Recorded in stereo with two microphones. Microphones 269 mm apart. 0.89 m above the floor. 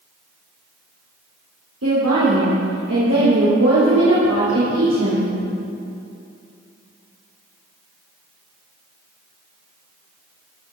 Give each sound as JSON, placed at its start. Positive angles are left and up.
{"t": 1.8, "sound": "a woman speaking", "side_deg": -70, "distance_m": 3.0}